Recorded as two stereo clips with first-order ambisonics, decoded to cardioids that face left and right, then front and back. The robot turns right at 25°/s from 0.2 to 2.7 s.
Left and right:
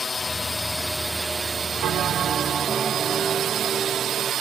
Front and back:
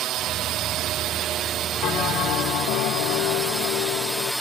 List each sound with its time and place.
0.0 s a drone: 160° left; by 4.4 s 90° right
1.8 s a bell: 45° right; by 4.3 s 20° right